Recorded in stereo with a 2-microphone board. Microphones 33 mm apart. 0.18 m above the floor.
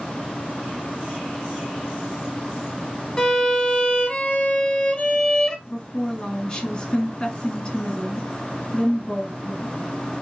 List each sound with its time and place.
3.2 s a violin: 20° left (ahead or behind), 0.8 m
5.7 s a woman speaking: 20° left (ahead or behind), 1.6 m